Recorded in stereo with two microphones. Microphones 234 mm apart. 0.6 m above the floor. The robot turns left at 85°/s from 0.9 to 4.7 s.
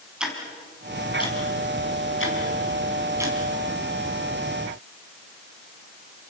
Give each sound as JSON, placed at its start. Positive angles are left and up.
{"t": 0.2, "sound": "ticking", "side_deg": -5, "distance_m": 5.0}